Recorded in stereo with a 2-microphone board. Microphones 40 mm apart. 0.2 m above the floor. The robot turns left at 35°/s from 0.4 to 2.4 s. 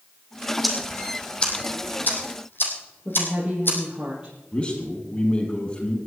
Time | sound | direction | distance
0.6 | ticking | centre (ahead or behind) | 3.5 m
3.0 | a woman speaking | 20° right (ahead or behind) | 6.5 m
4.5 | a man speaking | 30° left (ahead or behind) | 6 m